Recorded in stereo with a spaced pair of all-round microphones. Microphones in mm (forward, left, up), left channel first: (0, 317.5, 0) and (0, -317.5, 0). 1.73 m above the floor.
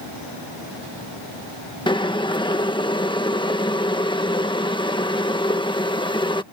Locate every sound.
1.9 s boiling: 5° left (ahead or behind)